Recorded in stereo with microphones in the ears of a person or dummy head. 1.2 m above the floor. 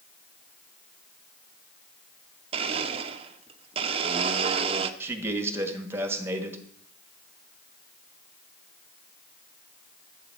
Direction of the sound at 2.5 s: 30° right (ahead or behind).